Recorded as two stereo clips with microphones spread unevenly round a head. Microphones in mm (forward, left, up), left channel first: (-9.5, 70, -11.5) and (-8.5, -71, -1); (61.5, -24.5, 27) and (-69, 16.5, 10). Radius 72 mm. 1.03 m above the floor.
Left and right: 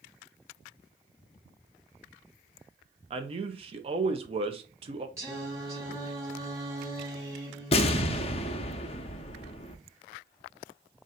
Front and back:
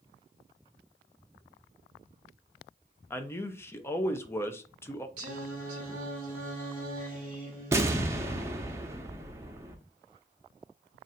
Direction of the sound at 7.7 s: 90° left.